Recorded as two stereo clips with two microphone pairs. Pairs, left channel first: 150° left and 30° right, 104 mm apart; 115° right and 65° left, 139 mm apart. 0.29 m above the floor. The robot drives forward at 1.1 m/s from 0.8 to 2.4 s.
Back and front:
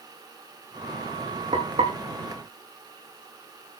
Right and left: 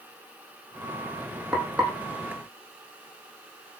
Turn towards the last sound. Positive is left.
turn(degrees=-25)